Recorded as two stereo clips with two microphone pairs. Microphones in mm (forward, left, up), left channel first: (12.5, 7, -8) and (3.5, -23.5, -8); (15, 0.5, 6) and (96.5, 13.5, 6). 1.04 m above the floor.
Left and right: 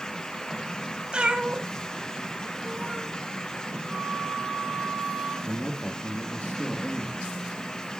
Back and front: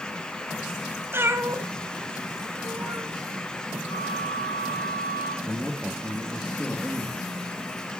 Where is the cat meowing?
50° right, 1.7 m.